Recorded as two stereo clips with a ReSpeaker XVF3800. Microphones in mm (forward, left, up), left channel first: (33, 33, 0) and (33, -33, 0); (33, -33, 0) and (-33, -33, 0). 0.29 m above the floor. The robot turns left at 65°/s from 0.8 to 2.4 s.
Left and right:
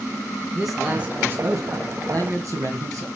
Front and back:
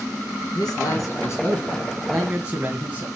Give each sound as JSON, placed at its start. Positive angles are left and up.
{"t": 0.6, "sound": "a man speaking", "azimuth_deg": -5, "distance_m": 2.5}